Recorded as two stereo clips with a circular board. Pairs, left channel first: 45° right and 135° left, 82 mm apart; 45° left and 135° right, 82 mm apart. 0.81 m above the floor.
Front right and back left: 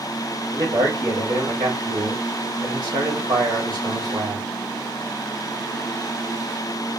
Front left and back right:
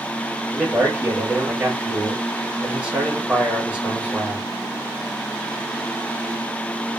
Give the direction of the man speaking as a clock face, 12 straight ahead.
7 o'clock.